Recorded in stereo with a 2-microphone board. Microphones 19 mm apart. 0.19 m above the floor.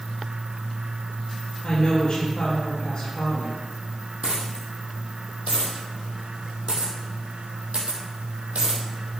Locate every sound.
1.6 s a woman speaking: 30° left (ahead or behind), 4 m
4.2 s a dropped coin: 80° right, 2.5 m